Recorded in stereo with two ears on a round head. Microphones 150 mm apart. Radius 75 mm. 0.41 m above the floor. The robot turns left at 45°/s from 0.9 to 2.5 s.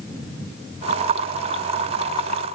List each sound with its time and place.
Only background noise.